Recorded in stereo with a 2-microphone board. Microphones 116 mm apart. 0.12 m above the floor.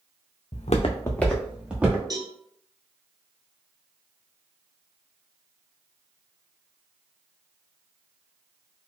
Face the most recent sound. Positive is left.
turn(degrees=-35)  # may be behind; listen again after turning